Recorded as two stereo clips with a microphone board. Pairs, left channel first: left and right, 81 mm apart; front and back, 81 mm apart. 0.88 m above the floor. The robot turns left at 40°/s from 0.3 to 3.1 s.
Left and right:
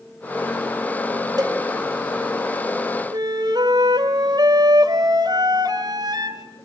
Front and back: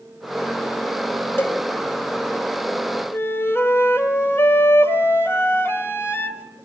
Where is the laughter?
No laughter in this recording.